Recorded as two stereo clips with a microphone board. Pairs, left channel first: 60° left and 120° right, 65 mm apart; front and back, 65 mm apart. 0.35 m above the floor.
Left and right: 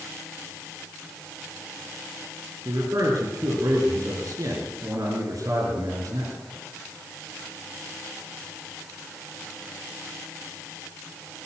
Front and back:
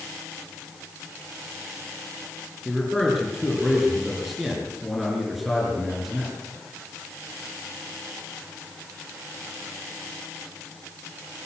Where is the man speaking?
90° right, 6 m.